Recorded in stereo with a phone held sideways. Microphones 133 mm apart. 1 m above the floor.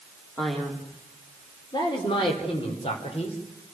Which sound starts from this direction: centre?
A man speaking, at 0.4 s.